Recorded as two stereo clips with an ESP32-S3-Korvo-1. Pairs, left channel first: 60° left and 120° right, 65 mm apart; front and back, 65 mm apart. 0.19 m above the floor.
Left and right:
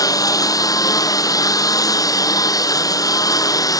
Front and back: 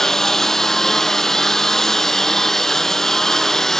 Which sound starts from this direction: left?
A lawn mower, at 0.0 s.